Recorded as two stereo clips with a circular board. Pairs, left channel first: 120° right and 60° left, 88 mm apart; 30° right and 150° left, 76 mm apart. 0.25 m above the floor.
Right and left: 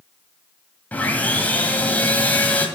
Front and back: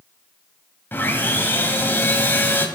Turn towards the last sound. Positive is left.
turn(degrees=-65)